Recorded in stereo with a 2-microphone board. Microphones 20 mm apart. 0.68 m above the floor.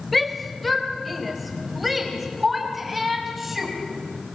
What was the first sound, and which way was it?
A shout, centre (ahead or behind).